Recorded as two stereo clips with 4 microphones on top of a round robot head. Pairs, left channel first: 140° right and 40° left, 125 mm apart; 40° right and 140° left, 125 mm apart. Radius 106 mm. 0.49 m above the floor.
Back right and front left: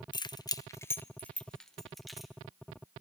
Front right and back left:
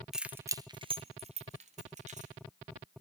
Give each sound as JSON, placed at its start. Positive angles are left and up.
{"t": 0.1, "sound": "keys jangling", "azimuth_deg": -135, "distance_m": 0.5}